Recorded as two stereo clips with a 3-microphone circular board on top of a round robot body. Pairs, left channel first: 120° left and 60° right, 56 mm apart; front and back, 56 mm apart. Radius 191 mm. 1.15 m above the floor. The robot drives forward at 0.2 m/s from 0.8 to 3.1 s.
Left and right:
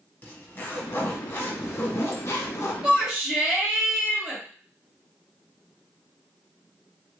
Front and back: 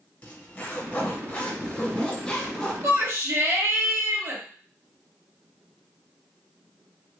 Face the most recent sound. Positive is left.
turn(degrees=-145)